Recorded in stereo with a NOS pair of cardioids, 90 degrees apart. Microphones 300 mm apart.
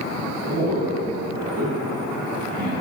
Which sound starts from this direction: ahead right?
A man speaking, at 0.5 s.